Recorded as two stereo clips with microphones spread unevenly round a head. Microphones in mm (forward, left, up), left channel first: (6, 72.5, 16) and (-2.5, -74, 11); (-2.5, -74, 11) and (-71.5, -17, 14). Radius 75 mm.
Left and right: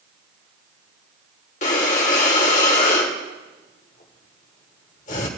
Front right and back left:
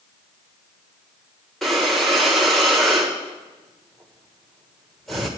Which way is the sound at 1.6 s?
50° left.